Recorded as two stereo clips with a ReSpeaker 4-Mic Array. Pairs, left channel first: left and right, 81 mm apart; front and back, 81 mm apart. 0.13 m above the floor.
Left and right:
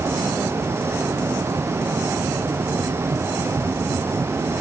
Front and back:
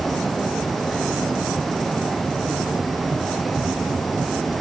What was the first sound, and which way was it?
Only background noise.